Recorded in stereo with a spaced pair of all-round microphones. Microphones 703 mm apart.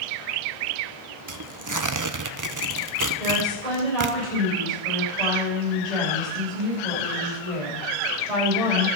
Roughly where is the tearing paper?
Right.